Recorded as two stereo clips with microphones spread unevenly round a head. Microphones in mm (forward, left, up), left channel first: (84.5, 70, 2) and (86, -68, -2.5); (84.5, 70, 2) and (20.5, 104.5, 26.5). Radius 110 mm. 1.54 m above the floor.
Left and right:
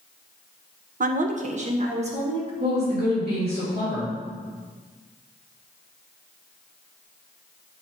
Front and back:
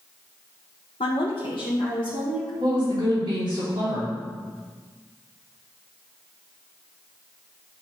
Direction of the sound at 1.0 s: 70° right.